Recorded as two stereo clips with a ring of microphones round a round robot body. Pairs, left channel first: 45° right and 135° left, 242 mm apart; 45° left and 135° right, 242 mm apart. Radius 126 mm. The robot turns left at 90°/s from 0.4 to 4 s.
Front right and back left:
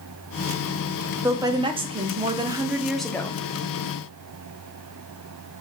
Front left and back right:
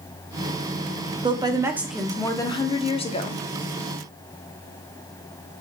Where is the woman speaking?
160° right, 0.7 m; by 3.4 s 5° left, 0.7 m.